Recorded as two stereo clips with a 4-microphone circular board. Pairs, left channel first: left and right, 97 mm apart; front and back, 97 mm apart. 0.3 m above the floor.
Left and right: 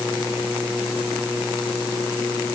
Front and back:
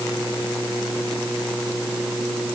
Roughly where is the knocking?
I don't hear knocking.